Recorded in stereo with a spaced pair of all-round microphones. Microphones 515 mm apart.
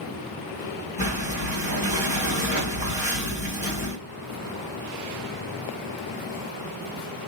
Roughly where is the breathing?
Centre.